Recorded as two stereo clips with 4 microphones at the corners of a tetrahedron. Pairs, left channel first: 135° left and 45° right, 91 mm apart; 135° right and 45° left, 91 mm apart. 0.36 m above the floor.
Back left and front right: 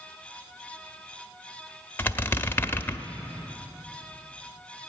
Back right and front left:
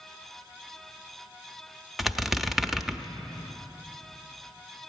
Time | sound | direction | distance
2.0 | a squeak | 130° left | 0.5 m